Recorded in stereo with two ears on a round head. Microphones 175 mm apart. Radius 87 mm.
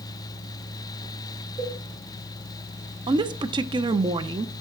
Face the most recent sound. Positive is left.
turn(degrees=-25)  # may be behind; listen again after turning